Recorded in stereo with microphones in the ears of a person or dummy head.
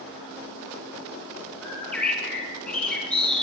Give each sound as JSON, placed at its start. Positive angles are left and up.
{"t": 1.6, "sound": "a bird", "side_deg": 10, "distance_m": 7.0}